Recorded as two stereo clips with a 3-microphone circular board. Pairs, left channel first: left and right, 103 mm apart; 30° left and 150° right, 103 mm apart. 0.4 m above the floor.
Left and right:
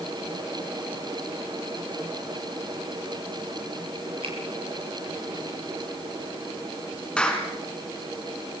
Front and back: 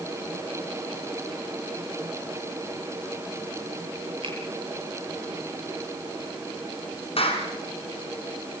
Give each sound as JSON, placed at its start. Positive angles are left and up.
{"t": 4.2, "sound": "a finger snap", "azimuth_deg": -115, "distance_m": 10.0}
{"t": 7.2, "sound": "a clap", "azimuth_deg": 10, "distance_m": 4.0}